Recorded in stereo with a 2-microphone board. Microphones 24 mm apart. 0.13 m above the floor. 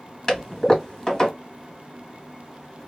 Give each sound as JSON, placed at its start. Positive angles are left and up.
{"t": 0.3, "sound": "a toilet flushing", "side_deg": 25, "distance_m": 1.9}